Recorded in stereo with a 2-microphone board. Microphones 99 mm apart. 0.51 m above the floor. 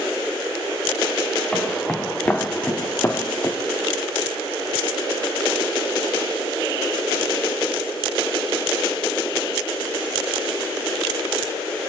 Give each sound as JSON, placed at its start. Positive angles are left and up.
{"t": 1.5, "sound": "footsteps", "side_deg": 5, "distance_m": 3.0}